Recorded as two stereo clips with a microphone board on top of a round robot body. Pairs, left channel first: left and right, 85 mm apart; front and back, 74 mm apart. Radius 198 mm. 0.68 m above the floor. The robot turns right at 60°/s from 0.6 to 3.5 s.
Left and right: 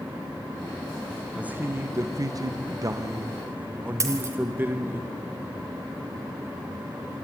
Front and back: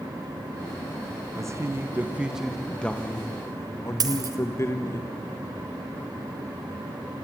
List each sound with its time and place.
1.4 s a man speaking: 160° right, 1.1 m; by 5.0 s 35° right, 1.1 m
4.0 s a dropped coin: 145° right, 1.5 m